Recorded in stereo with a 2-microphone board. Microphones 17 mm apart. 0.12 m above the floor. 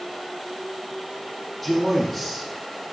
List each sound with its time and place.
1.6 s a man speaking: 5° left (ahead or behind), 4.5 m